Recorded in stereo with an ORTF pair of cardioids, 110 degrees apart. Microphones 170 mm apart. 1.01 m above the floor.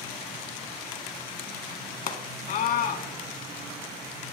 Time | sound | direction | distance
2.1 | a scream | 65° left | 1.4 m